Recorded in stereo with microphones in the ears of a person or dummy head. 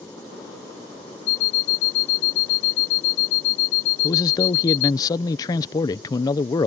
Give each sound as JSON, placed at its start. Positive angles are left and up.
{"t": 1.3, "sound": "an alarm clock", "side_deg": 65}
{"t": 4.0, "sound": "a man speaking", "side_deg": 20}